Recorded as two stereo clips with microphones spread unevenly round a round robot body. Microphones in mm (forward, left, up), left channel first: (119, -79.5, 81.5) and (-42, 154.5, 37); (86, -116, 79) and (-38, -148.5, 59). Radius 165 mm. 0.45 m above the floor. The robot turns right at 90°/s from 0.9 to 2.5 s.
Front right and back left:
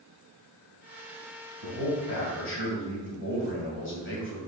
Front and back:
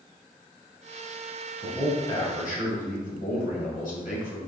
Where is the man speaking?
80° right, 2.5 m; by 4.4 s 5° right, 2.5 m.